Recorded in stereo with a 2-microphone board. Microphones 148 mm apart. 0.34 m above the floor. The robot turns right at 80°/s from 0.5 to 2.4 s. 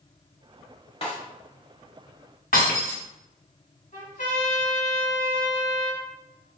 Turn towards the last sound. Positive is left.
turn(degrees=65)  # may be behind; listen again after turning